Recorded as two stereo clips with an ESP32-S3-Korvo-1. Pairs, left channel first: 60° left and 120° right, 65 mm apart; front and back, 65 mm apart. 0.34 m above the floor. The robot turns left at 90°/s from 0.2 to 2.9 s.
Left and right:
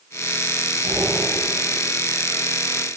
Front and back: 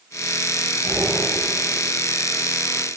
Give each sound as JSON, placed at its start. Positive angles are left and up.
{"t": 0.8, "sound": "breathing", "azimuth_deg": -110, "distance_m": 3.0}